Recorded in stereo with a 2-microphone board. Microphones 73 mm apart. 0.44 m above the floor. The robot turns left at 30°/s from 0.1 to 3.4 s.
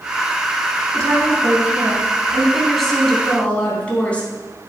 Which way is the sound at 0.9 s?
125° right.